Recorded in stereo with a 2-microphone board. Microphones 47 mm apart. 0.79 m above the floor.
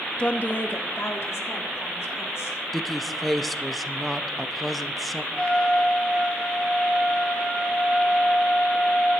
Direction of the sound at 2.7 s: 5° left (ahead or behind).